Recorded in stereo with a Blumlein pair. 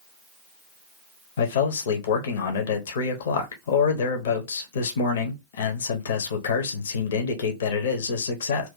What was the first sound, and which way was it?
A man speaking, 60° left.